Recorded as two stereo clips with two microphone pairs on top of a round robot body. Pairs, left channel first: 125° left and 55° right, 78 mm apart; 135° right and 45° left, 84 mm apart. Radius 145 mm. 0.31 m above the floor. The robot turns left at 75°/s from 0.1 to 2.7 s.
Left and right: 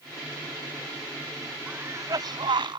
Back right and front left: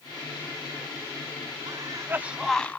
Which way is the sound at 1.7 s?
15° left.